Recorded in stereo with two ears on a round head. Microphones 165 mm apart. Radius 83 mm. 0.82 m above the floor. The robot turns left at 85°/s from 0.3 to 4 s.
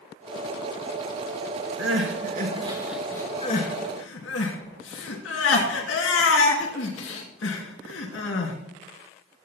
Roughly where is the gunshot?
No gunshot in this recording.